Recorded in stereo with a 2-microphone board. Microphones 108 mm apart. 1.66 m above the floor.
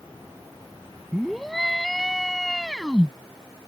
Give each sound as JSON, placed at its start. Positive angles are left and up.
{"t": 1.1, "sound": "a scream", "side_deg": 0}